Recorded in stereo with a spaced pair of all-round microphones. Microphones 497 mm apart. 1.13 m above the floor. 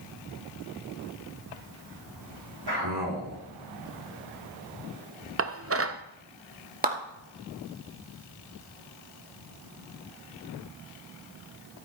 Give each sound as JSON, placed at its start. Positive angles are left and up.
{"t": 2.7, "sound": "a man speaking", "side_deg": -50, "distance_m": 3.5}
{"t": 5.4, "sound": "dishes clattering", "side_deg": -30, "distance_m": 0.6}
{"t": 6.8, "sound": "a clap", "side_deg": -15, "distance_m": 1.8}